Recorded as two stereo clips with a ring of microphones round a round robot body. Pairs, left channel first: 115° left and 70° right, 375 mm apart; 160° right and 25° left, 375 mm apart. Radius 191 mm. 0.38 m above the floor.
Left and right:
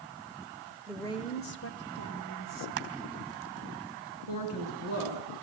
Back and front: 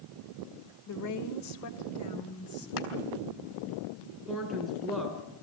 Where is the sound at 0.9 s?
155° right, 1.4 m; by 2.7 s 150° left, 3 m.